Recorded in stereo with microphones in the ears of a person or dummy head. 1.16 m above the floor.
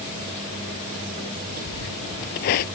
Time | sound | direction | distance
1.7 | footsteps | 50° left (ahead or behind) | ?